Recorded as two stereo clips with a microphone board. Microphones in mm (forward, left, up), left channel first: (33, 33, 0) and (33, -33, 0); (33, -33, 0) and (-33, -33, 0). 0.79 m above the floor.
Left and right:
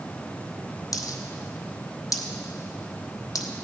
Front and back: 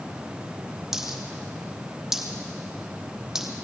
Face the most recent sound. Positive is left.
turn(degrees=100)